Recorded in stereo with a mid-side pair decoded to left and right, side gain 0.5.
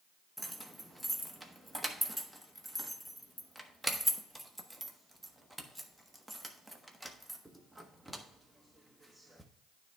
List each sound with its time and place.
0.4 s keys jangling: 5° right, 1.2 m